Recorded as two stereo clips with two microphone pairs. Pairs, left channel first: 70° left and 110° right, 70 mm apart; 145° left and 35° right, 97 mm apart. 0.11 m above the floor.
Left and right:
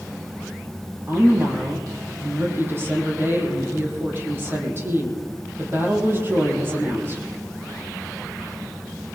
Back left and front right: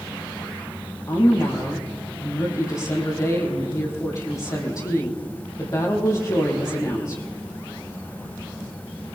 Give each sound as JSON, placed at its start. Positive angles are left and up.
{"t": 1.1, "sound": "a woman speaking", "azimuth_deg": -165, "distance_m": 4.5}